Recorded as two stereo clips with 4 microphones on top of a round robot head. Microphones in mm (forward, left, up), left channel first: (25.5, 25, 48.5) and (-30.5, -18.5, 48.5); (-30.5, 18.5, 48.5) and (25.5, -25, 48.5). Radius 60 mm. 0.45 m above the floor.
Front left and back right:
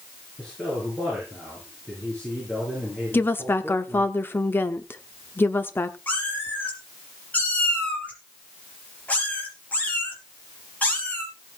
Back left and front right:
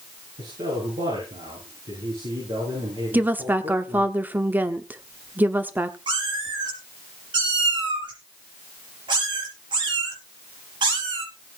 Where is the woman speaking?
5° left, 1.1 m.